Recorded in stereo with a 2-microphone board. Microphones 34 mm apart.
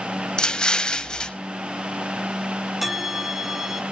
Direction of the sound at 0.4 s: 25° left (ahead or behind).